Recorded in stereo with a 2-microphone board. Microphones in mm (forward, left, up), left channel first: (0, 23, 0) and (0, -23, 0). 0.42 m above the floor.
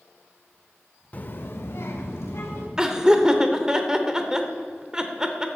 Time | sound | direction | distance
1.1 | a child speaking | 30° left (ahead or behind) | 0.6 m
2.8 | laughter | 15° right (ahead or behind) | 0.9 m